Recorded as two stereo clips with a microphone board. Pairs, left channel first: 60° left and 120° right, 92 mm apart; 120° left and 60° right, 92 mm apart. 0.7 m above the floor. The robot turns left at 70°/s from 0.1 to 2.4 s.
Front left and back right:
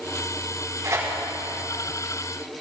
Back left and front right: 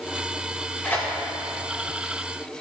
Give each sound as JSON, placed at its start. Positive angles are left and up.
{"t": 0.8, "sound": "tearing paper", "azimuth_deg": -170, "distance_m": 4.0}